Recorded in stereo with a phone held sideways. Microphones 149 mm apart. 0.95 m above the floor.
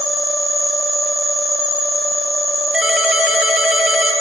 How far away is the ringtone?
About 1.8 m.